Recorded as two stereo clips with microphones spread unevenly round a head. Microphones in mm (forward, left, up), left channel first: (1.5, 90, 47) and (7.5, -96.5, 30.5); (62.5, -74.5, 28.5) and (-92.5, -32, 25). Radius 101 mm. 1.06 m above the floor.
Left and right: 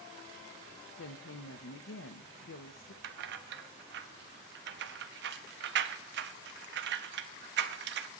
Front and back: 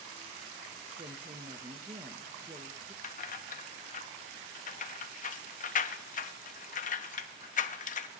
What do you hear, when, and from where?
1.0 s a woman speaking: 105° left, 0.8 m
3.0 s keys jangling: 55° right, 0.7 m